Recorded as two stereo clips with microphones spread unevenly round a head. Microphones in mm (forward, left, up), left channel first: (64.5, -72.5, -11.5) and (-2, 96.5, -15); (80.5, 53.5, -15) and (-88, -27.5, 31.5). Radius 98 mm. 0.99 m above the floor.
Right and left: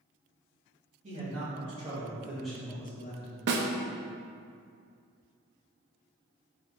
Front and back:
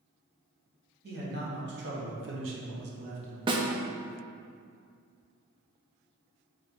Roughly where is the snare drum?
Behind left.